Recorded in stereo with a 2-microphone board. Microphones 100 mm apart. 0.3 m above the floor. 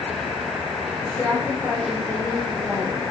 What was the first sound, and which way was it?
A woman speaking, 15° left (ahead or behind).